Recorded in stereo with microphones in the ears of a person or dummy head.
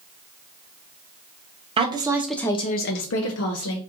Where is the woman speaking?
25° right (ahead or behind), 0.9 m; by 3.8 s 80° left, 1.1 m.